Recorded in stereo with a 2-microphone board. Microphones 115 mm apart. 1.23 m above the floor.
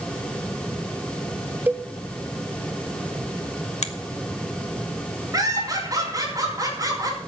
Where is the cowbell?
15° right (ahead or behind), 0.6 m.